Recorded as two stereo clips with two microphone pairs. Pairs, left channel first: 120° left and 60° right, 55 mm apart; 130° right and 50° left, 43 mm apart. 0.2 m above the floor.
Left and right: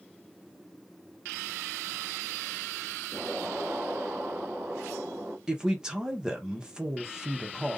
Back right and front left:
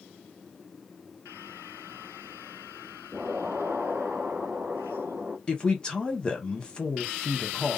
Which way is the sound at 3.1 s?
5° right.